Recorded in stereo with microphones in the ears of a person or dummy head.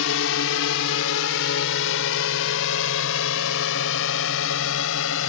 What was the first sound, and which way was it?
A drone, 75° left (ahead or behind).